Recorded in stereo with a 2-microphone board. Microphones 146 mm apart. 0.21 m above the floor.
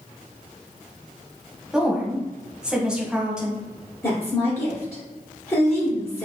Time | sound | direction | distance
1.7 | a woman speaking | 5° right (ahead or behind) | 1.0 m
4.0 | a woman speaking | 20° left (ahead or behind) | 1.7 m